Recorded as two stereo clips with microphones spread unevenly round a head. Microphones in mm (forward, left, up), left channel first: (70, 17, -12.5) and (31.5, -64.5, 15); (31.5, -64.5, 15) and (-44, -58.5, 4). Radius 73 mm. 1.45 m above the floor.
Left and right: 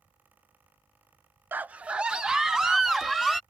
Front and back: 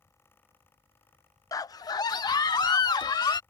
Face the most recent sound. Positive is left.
turn(degrees=-30)